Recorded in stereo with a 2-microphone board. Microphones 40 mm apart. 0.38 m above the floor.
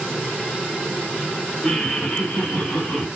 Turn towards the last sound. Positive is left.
turn(degrees=45)  # may be behind; listen again after turning